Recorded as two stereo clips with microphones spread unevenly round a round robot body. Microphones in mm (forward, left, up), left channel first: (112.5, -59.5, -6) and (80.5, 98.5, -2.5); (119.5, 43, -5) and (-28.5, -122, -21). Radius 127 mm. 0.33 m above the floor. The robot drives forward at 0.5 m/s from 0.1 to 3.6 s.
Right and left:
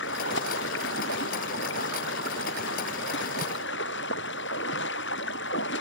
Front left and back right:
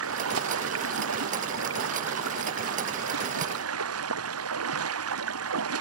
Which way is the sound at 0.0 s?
115° right.